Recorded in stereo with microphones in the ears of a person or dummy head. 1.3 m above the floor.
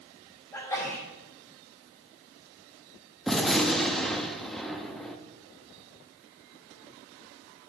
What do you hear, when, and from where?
0.5 s a sneeze: 15° left (ahead or behind), 4.5 m
3.3 s a gunshot: centre (ahead or behind), 0.9 m